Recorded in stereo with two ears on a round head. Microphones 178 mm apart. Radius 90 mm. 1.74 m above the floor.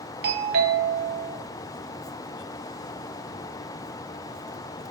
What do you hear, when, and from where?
0.2 s a doorbell: 55° right (ahead or behind), 1.1 m